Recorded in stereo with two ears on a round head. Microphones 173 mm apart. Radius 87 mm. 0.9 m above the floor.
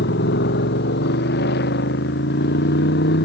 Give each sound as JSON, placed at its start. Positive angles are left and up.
{"t": 0.0, "sound": "a motorcycle", "side_deg": 60}